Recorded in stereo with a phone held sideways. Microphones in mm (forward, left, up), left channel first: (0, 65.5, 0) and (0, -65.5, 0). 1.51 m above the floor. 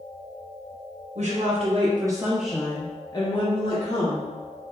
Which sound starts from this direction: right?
A woman speaking, at 1.1 s.